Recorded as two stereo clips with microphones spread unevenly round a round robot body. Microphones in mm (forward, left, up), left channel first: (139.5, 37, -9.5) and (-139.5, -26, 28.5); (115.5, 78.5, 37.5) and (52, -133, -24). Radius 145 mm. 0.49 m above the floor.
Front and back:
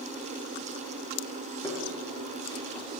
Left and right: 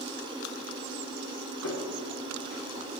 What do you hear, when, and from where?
1.6 s footsteps: 90° left, 3.5 m